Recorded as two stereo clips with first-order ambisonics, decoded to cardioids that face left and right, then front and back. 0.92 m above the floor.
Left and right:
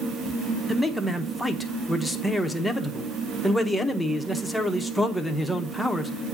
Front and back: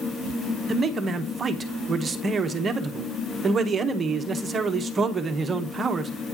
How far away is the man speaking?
About 0.7 m.